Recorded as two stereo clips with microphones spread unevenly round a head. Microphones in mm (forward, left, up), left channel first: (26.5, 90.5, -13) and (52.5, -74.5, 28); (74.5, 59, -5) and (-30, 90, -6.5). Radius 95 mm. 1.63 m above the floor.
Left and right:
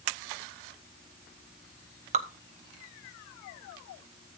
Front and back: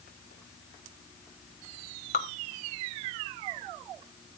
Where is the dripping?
35° right, 1.1 m.